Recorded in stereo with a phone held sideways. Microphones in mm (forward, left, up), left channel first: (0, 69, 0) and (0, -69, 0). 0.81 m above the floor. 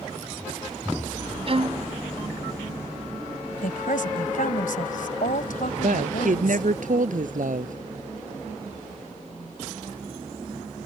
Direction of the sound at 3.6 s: 80° left.